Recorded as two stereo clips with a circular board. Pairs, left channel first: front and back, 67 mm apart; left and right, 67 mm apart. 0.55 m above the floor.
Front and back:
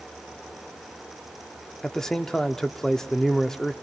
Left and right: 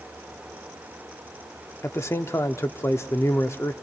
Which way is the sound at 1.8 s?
80° left.